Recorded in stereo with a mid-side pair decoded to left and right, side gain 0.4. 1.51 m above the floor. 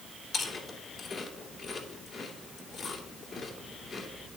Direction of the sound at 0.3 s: 50° left.